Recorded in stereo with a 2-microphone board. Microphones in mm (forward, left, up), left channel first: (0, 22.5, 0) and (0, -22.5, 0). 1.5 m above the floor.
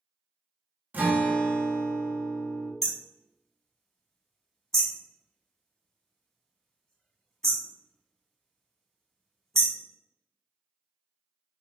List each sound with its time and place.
0.9 s a guitar: 40° right (ahead or behind), 0.9 m
2.8 s hammering: 15° left (ahead or behind), 1.0 m